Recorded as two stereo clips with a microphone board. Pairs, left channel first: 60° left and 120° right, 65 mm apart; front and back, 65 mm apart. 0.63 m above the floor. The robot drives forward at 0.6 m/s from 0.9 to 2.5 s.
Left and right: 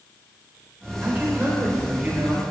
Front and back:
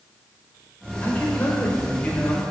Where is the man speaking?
60° right, 3 m; by 2.4 s 75° right, 3 m.